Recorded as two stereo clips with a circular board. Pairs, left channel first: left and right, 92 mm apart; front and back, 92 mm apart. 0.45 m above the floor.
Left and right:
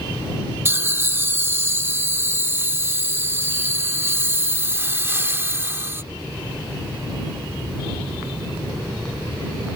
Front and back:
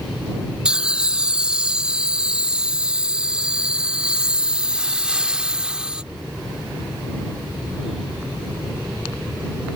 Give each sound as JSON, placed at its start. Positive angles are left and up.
{"t": 0.7, "sound": "laughter", "azimuth_deg": -115}